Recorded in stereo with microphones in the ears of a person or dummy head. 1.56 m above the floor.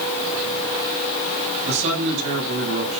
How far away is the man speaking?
About 9.5 m.